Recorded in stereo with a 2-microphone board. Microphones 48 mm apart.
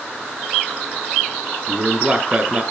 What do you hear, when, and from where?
1.7 s a man speaking: 25° right (ahead or behind), 2 m